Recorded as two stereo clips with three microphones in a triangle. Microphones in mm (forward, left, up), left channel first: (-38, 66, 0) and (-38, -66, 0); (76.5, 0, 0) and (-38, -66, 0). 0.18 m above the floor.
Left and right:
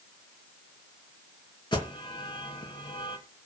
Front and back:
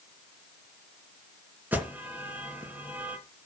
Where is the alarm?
135° left, 2.5 m.